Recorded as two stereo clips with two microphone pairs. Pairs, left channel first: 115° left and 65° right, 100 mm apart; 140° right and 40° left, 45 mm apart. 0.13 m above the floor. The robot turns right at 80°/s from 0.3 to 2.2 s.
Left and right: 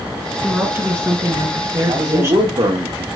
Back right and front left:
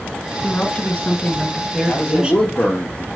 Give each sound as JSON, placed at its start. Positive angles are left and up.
{"t": 0.4, "sound": "a woman speaking", "azimuth_deg": -155, "distance_m": 1.5}
{"t": 1.9, "sound": "a man speaking", "azimuth_deg": -120, "distance_m": 2.5}